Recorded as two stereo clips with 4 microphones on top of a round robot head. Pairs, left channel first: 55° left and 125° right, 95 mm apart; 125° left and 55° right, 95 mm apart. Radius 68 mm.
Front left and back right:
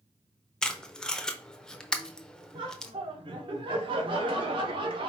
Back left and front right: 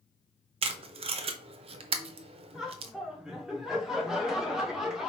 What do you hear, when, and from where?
0.6 s tape being pulled: 30° right, 0.6 m
2.5 s laughter: 135° right, 1.3 m